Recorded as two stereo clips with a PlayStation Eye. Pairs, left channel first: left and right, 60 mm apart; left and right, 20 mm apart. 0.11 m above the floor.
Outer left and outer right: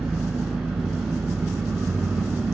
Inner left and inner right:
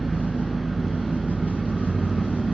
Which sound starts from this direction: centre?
An engine running, at 0.0 s.